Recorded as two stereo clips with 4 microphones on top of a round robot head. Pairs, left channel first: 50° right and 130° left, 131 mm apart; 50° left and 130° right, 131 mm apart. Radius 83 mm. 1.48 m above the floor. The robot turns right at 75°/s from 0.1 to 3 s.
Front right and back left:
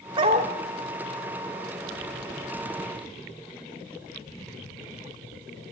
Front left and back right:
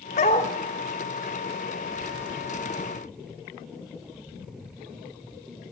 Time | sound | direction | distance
0.2 | a dog barking | 80° left | 1.5 m